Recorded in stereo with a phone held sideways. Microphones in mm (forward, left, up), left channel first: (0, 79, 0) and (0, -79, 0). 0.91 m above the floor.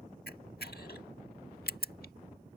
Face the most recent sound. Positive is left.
turn(degrees=80)